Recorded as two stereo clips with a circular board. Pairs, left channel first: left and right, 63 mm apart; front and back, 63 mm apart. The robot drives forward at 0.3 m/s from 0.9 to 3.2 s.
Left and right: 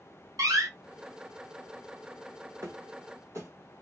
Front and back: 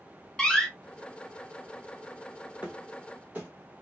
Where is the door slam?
80° right, 0.7 m.